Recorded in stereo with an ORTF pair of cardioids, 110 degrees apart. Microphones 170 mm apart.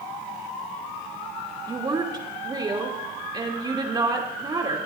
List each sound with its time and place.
1.7 s a woman speaking: 25° right, 3 m